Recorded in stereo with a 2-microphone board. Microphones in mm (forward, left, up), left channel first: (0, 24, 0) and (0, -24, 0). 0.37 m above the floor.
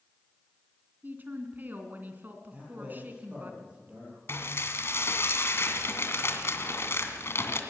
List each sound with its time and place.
1.0 s a woman speaking: 40° right (ahead or behind), 3 m
2.5 s a man speaking: 30° right (ahead or behind), 9.5 m
4.3 s dishes clattering: 60° left (ahead or behind), 2 m